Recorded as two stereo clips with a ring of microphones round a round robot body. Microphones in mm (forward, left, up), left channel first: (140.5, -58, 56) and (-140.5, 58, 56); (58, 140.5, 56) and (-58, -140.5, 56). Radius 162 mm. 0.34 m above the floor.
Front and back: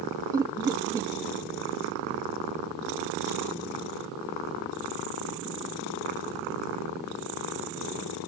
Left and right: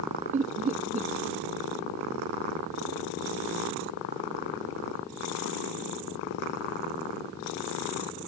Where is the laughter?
135° right.